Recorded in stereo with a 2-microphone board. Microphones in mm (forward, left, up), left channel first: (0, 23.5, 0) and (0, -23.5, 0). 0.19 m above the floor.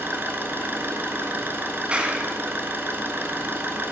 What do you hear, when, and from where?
0.0 s an engine running: 50° right (ahead or behind), 1.2 m
1.9 s a clap: 25° right (ahead or behind), 1.0 m